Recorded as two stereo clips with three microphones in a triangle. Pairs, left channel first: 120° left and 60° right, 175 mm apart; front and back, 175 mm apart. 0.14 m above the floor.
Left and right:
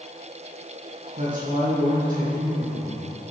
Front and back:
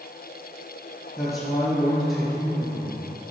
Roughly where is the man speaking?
Right.